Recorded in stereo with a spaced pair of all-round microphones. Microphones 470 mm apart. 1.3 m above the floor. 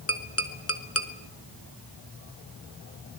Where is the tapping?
30° left (ahead or behind), 1.9 m.